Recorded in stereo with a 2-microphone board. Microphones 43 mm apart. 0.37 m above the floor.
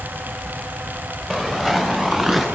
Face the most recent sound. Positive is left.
turn(degrees=-5)  # may be behind; listen again after turning